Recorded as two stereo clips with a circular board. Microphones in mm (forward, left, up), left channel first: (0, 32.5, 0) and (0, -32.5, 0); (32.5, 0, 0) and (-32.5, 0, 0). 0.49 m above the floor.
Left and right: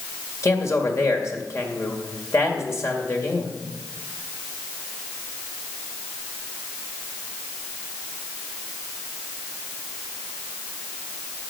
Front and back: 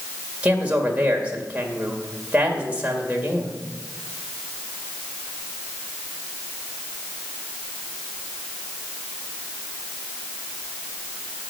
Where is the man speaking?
120° left, 2 m.